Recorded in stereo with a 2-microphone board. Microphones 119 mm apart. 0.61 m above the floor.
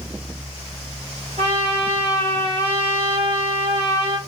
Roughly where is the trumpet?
Right.